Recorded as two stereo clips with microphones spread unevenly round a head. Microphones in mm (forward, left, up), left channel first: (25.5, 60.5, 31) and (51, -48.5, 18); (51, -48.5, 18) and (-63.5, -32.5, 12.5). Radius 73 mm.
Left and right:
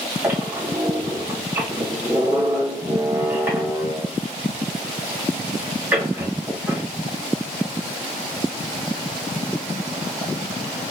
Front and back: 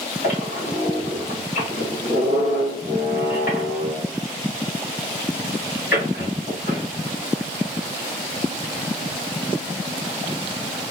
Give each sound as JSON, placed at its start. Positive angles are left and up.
{"t": 0.2, "sound": "a squeak", "azimuth_deg": -5, "distance_m": 2.5}